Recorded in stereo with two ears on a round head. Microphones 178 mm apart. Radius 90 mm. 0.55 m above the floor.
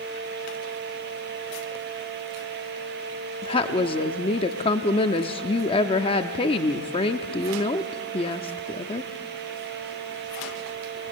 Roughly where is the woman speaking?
Left.